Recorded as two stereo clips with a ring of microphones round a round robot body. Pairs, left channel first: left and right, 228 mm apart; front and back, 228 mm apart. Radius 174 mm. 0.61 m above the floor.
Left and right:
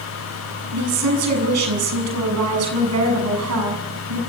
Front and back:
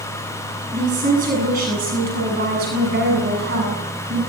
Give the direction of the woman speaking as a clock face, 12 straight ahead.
4 o'clock.